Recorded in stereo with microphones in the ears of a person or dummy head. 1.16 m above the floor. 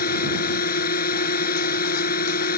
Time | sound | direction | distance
0.0 | a drone | 50° left (ahead or behind) | ?